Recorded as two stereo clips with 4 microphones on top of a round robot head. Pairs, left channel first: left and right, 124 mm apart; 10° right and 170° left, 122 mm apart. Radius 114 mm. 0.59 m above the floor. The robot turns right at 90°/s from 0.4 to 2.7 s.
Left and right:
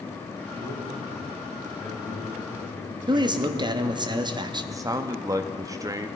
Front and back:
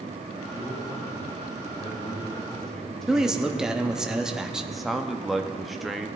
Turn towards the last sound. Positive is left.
turn(degrees=-105)